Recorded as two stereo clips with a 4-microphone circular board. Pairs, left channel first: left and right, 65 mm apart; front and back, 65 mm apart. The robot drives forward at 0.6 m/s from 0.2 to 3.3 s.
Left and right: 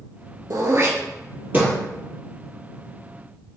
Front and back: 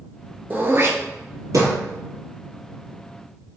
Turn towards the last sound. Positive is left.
turn(degrees=-165)